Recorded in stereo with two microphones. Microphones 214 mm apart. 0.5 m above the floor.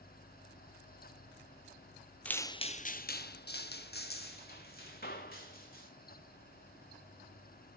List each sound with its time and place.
2.2 s footsteps: 5° left (ahead or behind), 0.6 m; by 5.9 s 45° left (ahead or behind), 2.5 m